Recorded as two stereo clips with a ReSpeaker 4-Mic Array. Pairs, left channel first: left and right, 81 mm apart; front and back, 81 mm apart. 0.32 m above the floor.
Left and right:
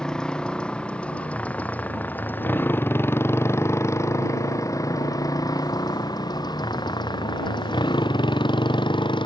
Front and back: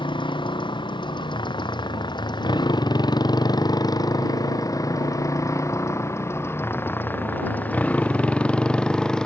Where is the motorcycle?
10° left; by 9.3 s 80° left.